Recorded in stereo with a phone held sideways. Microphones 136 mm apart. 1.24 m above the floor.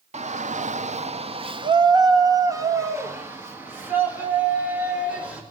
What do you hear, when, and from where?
0.1 s a shout: 55° right (ahead or behind), 0.8 m; by 5.4 s 10° right (ahead or behind), 3.5 m